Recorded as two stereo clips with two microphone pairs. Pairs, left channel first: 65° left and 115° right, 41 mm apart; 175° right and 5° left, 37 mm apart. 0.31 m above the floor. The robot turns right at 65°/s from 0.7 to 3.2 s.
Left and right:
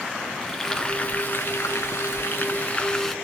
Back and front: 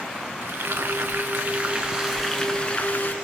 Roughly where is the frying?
Ahead.